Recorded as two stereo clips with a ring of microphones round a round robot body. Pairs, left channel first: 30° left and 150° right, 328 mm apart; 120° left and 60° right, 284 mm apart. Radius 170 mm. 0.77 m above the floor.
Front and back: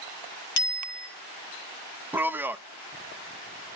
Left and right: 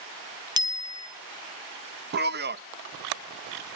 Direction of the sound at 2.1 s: 70° right.